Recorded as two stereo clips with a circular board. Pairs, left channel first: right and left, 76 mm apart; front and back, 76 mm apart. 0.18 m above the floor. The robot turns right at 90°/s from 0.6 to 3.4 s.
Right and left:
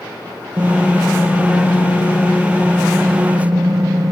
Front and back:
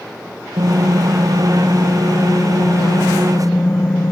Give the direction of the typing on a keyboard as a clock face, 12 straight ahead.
7 o'clock.